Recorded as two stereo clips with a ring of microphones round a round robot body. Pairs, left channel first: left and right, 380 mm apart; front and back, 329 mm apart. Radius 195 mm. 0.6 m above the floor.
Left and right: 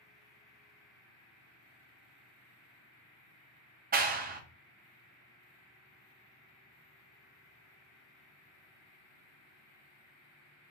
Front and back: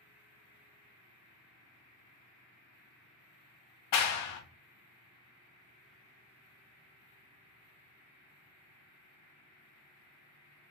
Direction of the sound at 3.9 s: 25° right.